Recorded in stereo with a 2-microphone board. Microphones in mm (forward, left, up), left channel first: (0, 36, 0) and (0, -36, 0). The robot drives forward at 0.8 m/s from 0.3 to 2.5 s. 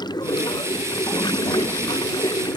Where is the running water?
80° left; by 2.6 s 85° left.